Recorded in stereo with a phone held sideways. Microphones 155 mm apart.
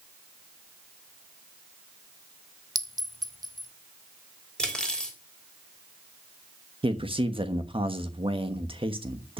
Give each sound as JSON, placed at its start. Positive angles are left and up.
{"t": 2.8, "sound": "a clink", "side_deg": -25, "distance_m": 0.7}
{"t": 4.6, "sound": "cutlery clinking", "side_deg": 5, "distance_m": 3.0}
{"t": 6.8, "sound": "a man speaking", "side_deg": -35, "distance_m": 1.2}